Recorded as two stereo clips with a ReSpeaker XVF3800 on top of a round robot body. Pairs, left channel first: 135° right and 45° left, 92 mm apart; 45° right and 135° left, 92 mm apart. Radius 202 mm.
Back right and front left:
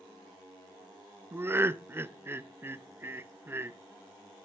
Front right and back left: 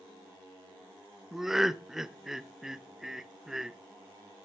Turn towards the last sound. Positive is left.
turn(degrees=55)